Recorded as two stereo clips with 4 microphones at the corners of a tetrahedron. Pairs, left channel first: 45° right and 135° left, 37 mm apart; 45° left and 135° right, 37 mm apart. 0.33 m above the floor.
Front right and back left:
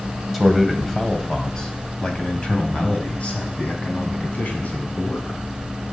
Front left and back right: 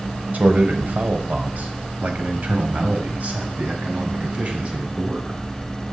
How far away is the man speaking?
About 2 m.